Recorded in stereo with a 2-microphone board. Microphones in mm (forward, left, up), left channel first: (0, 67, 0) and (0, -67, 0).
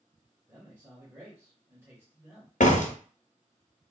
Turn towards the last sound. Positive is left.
turn(degrees=65)  # may be behind; listen again after turning